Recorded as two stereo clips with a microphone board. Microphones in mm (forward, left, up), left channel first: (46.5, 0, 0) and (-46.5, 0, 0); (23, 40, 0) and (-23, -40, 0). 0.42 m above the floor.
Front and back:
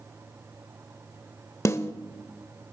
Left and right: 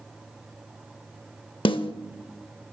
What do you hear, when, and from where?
1.6 s a snare drum: 55° left, 0.5 m